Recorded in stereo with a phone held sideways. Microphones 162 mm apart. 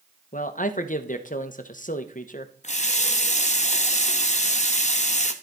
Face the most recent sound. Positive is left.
turn(degrees=45)  # may be behind; listen again after turning